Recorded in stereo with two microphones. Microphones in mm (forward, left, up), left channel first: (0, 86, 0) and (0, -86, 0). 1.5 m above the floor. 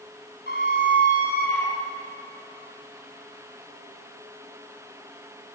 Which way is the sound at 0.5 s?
75° right (ahead or behind).